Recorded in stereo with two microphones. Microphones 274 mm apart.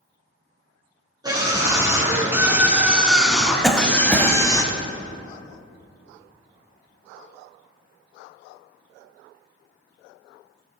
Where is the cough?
Centre (ahead or behind), 1.0 m.